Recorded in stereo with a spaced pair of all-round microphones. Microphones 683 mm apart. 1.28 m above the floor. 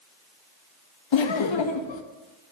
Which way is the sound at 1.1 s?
45° left (ahead or behind).